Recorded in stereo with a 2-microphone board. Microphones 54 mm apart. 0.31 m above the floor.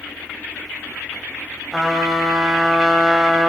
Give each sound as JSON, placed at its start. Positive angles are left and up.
{"t": 1.7, "sound": "a trumpet", "side_deg": 5, "distance_m": 1.4}